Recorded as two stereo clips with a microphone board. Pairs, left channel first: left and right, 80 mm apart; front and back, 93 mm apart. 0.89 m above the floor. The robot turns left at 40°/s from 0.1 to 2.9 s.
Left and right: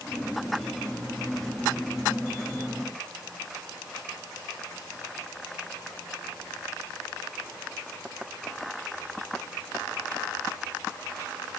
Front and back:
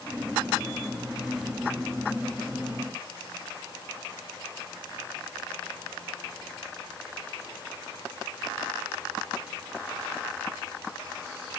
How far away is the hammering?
No hammering in this recording.